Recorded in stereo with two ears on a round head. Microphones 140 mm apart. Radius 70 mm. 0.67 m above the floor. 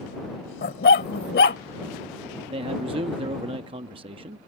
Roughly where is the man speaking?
Right.